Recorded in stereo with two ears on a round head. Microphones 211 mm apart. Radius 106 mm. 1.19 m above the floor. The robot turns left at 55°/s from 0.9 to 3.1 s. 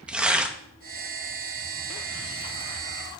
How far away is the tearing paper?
About 0.7 m.